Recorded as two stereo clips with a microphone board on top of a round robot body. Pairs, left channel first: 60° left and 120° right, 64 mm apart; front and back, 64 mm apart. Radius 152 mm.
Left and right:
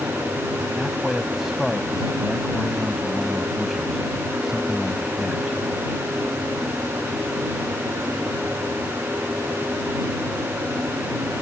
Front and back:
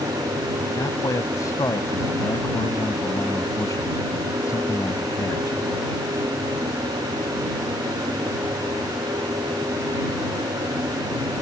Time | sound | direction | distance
0.8 | a man speaking | 35° right | ?